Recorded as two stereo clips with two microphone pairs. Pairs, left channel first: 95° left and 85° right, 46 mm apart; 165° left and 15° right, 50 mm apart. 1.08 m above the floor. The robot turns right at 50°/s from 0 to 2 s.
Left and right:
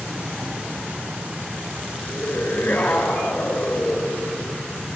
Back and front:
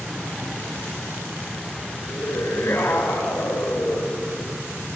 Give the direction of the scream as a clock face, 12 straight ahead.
7 o'clock.